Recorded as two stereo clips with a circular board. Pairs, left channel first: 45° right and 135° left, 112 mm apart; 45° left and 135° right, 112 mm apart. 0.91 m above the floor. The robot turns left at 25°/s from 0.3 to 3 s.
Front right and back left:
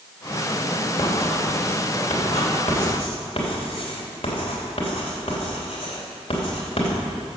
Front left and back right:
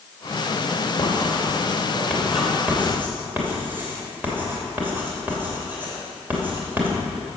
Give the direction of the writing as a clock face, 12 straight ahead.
12 o'clock.